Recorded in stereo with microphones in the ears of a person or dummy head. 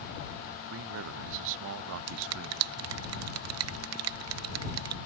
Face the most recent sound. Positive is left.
turn(degrees=-80)